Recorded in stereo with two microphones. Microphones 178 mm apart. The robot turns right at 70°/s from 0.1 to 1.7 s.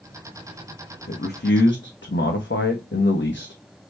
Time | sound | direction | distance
1.1 | a man speaking | 50° left | 0.7 m